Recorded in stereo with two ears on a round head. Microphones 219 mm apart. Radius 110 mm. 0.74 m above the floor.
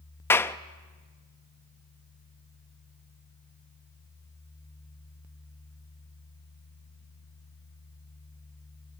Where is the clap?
10° left (ahead or behind), 0.6 m.